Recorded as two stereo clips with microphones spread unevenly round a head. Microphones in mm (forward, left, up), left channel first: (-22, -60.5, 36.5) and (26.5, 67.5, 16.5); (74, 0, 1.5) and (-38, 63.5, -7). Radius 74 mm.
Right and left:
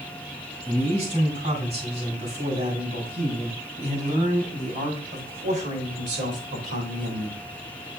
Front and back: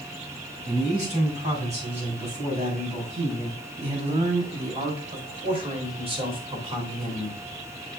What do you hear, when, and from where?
0.7 s a man speaking: 120° left, 6 m; by 7.4 s 100° left, 3 m